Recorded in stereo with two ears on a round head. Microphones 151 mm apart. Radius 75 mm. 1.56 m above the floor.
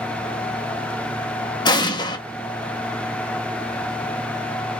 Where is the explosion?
25° left (ahead or behind), 0.9 m.